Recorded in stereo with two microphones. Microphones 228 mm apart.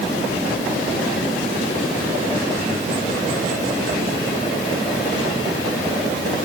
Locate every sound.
Only background noise.